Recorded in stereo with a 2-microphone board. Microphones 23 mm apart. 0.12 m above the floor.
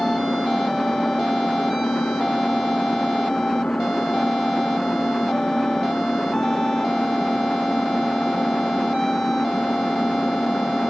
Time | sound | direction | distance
0.0 | an engine running | 75° left (ahead or behind) | ?